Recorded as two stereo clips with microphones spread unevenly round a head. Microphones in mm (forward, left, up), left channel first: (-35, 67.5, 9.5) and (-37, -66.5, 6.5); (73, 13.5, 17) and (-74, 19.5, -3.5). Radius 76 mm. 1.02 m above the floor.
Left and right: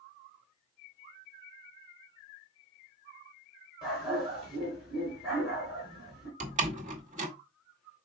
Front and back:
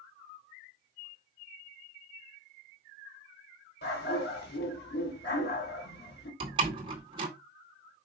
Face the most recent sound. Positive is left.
turn(degrees=-120)